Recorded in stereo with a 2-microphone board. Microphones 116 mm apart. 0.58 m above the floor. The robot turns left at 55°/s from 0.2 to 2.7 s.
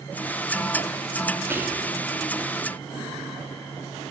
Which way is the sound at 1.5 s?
20° right (ahead or behind).